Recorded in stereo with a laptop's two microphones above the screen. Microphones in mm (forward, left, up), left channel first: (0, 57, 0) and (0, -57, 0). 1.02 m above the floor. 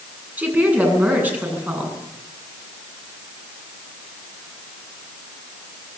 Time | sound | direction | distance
0.4 | a woman speaking | 15° right (ahead or behind) | 9 m